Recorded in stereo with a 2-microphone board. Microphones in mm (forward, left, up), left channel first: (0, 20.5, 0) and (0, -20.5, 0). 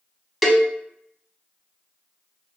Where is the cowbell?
Centre (ahead or behind), 0.6 m.